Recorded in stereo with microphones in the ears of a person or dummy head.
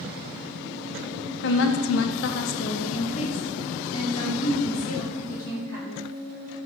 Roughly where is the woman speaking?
Left.